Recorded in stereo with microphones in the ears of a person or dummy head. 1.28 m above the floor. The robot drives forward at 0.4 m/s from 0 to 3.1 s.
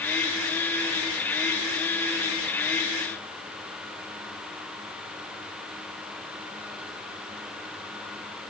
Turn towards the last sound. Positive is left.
No sound to turn to.